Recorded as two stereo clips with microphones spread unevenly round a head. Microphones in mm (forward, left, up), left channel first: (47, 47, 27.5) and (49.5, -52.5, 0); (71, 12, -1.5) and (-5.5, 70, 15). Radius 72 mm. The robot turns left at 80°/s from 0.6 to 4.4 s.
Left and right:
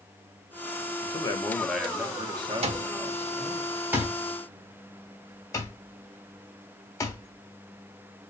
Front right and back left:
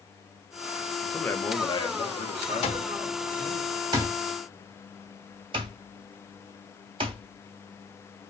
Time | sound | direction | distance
1.0 | a man speaking | 50° left | 1.4 m
2.6 | an alarm clock | 70° right | 1.1 m